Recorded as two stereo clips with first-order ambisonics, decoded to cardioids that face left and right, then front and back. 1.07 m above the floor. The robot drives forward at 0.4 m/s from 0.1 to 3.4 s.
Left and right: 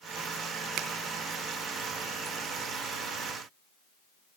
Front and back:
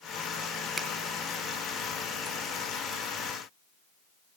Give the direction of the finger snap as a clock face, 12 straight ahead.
4 o'clock.